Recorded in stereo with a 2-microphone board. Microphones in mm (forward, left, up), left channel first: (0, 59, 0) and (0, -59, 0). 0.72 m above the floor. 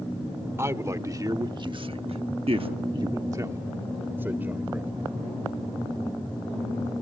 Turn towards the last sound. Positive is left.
turn(degrees=-15)  # may be behind; listen again after turning